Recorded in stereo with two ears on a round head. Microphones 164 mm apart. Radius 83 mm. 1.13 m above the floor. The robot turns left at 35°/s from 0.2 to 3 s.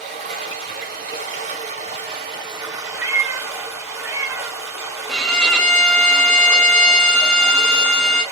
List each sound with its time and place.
0.0 s running water: 60° right, 1.2 m; by 8.3 s 160° right, 1.2 m
3.0 s a cat meowing: 15° right (ahead or behind), 0.8 m
5.1 s a violin: 5° left (ahead or behind), 0.5 m